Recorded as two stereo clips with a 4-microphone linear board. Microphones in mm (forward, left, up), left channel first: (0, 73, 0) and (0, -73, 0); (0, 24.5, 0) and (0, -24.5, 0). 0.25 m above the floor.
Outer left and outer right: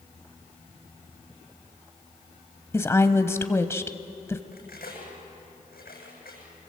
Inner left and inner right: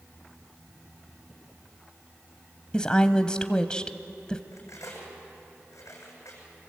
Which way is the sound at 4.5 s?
85° left.